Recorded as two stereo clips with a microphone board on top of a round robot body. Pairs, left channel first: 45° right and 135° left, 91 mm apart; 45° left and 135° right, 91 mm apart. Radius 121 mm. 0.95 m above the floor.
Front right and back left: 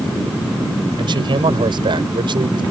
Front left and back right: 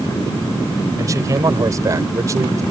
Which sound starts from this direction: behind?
A man speaking, at 1.0 s.